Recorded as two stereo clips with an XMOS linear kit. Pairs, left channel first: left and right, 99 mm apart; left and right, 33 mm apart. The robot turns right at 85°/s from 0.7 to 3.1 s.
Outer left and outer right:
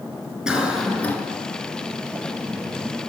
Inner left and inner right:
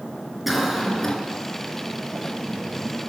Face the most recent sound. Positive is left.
turn(degrees=-165)